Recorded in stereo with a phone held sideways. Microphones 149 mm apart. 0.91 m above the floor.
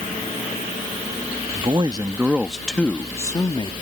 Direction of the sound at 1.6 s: 40° right (ahead or behind).